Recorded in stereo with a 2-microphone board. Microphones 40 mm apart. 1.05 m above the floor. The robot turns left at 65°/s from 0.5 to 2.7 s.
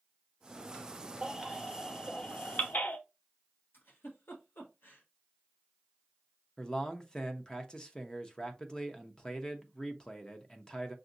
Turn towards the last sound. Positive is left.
turn(degrees=20)  # may be behind; listen again after turning